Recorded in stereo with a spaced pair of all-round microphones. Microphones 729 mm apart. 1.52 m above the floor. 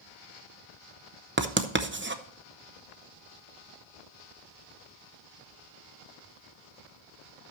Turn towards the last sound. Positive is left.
turn(degrees=-15)  # may be behind; listen again after turning